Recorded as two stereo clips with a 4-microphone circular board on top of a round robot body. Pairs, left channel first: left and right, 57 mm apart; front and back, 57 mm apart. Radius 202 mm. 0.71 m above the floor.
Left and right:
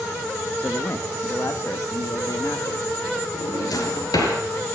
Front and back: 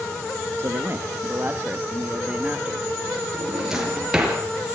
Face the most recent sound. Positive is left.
turn(degrees=100)